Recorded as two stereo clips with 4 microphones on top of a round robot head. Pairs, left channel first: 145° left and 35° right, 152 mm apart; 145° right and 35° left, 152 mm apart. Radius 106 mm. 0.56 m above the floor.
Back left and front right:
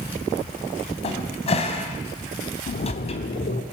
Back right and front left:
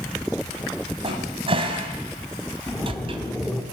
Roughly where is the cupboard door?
Left.